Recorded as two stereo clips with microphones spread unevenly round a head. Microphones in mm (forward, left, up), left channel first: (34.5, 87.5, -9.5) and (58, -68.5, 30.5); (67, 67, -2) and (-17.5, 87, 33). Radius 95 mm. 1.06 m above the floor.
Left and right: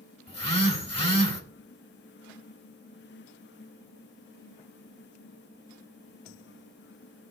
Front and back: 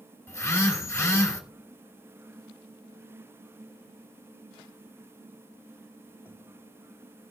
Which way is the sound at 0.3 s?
50° left.